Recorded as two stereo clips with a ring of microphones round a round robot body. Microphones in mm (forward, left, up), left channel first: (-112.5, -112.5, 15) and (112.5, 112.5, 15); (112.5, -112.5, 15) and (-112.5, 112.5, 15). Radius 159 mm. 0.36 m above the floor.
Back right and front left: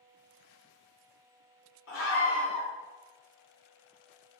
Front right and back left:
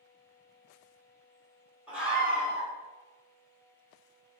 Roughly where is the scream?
Behind right.